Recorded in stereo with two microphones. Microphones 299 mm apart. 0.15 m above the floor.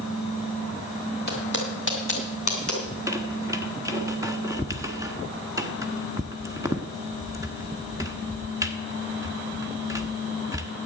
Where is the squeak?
10° right (ahead or behind), 1.1 m.